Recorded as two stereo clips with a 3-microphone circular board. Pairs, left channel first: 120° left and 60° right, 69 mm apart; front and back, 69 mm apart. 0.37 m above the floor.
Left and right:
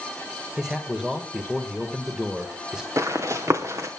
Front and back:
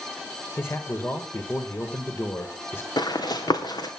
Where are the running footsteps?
15° right, 2 m.